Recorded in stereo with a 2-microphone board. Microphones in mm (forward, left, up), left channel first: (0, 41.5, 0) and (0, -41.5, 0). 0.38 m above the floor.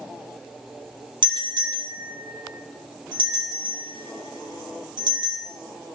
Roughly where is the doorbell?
Right.